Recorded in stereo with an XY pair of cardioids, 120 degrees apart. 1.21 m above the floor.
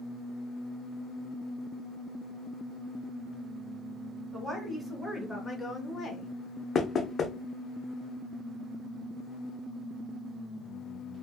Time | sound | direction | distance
4.3 | a woman speaking | 10° right | 1.2 m
6.8 | knocking | 40° left | 0.6 m